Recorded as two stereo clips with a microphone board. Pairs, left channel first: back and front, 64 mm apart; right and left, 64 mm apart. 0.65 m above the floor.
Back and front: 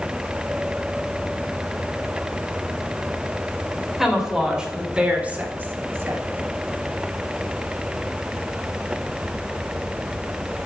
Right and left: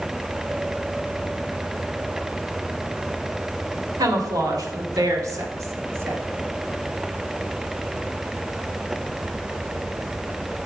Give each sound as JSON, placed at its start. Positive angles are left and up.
{"t": 4.0, "sound": "a woman speaking", "azimuth_deg": 85, "distance_m": 2.5}